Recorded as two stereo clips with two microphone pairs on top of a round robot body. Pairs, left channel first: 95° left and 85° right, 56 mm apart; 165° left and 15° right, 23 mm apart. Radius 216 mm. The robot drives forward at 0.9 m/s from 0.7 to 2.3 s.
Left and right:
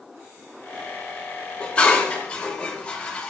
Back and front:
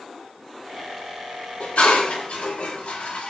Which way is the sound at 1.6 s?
160° left.